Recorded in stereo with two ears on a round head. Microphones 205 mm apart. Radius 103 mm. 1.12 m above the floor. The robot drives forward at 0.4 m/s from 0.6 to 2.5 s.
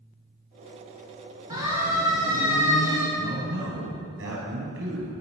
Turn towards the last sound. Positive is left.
turn(degrees=-60)  # may be behind; listen again after turning